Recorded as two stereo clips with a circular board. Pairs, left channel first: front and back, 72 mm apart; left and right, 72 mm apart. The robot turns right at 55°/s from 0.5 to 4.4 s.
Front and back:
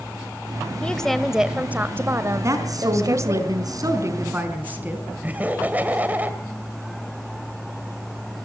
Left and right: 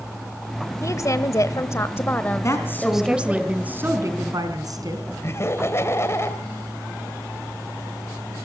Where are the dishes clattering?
No dishes clattering in this recording.